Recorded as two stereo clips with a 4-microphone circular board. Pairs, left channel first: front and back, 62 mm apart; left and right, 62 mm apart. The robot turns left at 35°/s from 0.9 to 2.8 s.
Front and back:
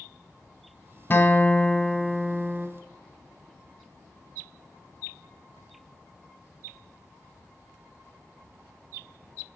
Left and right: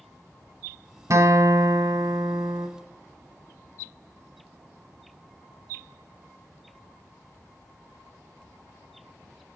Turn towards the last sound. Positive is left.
turn(degrees=-115)